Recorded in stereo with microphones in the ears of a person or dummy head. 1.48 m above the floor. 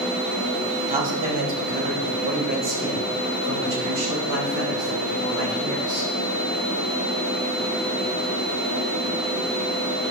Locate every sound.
0.9 s a man speaking: 40° right (ahead or behind), 2.5 m; by 6.1 s 65° right (ahead or behind), 5 m